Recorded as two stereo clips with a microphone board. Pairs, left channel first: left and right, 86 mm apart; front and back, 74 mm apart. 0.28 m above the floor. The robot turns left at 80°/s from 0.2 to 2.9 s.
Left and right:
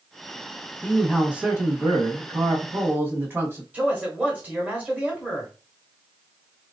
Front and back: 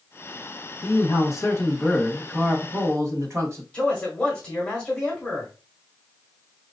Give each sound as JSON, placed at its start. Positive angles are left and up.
{"t": 0.8, "sound": "a man speaking", "azimuth_deg": 25, "distance_m": 1.4}
{"t": 3.7, "sound": "a man speaking", "azimuth_deg": -50, "distance_m": 1.6}